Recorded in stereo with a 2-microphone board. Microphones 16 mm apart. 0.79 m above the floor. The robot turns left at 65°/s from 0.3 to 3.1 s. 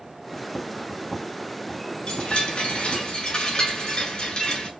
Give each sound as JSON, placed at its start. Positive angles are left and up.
{"t": 2.1, "sound": "a chime", "azimuth_deg": 125, "distance_m": 8.0}